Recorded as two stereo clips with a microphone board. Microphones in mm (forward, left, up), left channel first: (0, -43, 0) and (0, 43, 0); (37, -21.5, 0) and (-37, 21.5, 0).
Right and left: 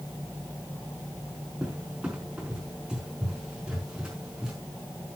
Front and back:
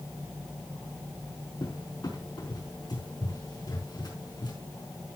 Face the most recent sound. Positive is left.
turn(degrees=10)